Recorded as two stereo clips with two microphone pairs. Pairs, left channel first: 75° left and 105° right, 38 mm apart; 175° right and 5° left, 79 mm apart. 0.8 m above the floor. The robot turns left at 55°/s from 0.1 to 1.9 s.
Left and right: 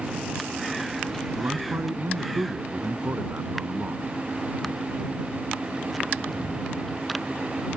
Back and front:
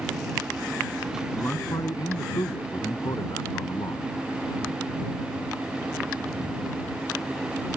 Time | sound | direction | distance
1.4 | a man speaking | 110° right | ?